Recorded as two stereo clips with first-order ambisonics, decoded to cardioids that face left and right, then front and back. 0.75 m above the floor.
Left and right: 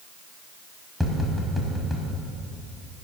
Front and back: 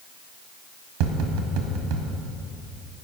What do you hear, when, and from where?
1.0 s tapping: straight behind, 1.6 m